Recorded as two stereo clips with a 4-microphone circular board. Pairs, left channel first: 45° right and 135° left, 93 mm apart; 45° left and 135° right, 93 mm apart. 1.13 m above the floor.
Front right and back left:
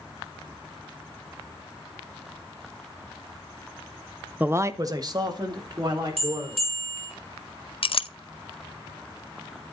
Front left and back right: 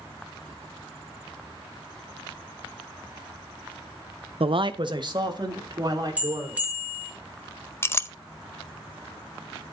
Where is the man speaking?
150° right, 0.5 m; by 6.7 s 175° left, 4 m.